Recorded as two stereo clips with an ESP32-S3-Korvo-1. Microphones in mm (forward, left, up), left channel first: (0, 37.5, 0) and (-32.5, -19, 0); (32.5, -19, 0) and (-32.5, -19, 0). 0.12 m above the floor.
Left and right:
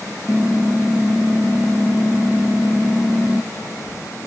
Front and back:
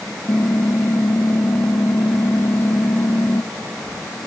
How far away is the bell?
No bell in this recording.